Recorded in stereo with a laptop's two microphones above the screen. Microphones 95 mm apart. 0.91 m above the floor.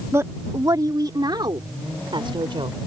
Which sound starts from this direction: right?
A woman speaking, at 0.1 s.